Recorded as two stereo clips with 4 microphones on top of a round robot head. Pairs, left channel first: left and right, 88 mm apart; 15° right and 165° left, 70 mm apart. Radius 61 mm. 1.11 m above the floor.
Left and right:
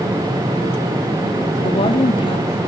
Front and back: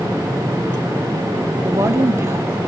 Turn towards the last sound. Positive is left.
turn(degrees=115)